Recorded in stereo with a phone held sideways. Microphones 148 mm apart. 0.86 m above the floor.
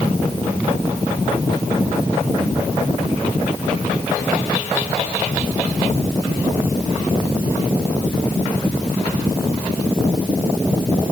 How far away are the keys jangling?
No keys jangling in this recording.